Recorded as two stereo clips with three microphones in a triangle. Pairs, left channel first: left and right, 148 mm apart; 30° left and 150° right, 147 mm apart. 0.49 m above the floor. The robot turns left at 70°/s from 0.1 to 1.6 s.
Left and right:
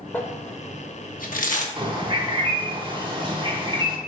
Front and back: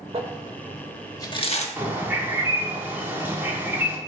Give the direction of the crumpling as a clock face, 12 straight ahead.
6 o'clock.